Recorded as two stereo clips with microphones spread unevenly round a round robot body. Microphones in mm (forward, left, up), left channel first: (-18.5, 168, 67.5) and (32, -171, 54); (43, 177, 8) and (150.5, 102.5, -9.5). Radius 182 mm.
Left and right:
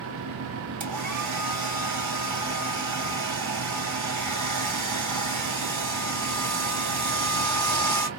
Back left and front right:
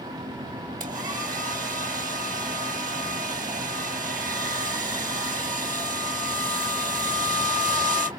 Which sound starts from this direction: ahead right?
A hair dryer, at 0.8 s.